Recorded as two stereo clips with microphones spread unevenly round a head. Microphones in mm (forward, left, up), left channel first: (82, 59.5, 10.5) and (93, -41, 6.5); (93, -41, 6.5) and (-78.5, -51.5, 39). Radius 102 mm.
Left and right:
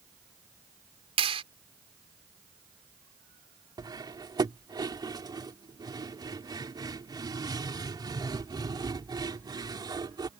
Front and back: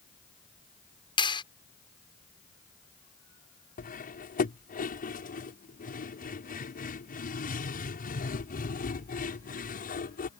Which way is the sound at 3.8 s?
35° right.